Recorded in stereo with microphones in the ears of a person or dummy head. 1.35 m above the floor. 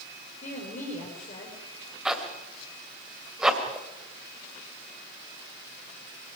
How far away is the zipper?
About 2.5 m.